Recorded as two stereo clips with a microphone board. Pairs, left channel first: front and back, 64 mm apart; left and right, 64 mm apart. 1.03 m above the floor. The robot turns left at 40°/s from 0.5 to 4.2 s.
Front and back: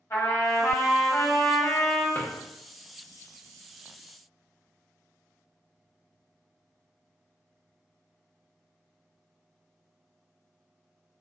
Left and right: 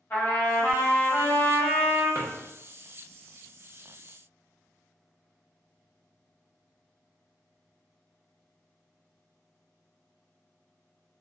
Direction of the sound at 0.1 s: 45° left.